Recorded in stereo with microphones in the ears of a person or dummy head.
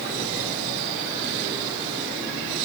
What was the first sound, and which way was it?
Only background noise.